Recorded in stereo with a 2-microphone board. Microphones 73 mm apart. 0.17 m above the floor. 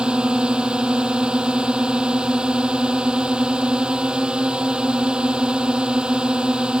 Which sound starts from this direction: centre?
A drone, at 0.0 s.